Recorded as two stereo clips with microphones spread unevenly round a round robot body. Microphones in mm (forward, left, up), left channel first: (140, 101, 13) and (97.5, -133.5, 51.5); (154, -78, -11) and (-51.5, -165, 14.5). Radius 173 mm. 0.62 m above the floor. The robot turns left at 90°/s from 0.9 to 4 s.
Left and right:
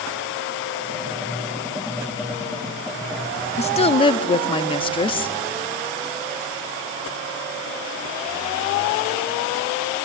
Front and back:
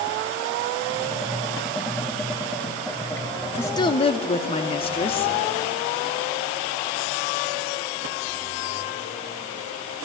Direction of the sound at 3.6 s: 90° left.